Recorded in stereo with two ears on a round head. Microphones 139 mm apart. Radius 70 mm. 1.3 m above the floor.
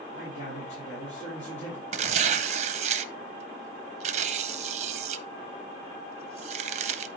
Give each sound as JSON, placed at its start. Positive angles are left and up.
{"t": 0.1, "sound": "a man speaking", "side_deg": 85, "distance_m": 4.0}
{"t": 1.9, "sound": "tearing paper", "side_deg": -45, "distance_m": 0.5}